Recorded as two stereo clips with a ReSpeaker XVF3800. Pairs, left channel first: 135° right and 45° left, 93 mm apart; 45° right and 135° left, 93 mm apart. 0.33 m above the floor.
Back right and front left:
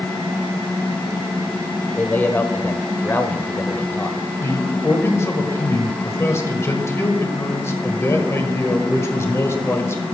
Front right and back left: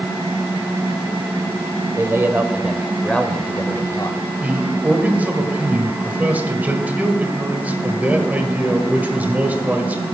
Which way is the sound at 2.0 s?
165° left.